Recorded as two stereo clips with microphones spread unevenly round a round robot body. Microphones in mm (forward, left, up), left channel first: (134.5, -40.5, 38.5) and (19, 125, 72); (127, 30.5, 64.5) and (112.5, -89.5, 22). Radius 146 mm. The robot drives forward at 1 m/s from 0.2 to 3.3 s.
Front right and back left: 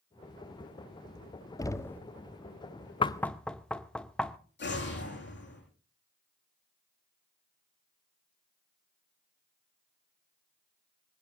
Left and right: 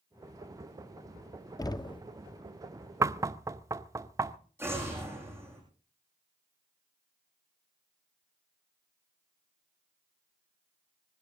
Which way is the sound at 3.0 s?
90° right.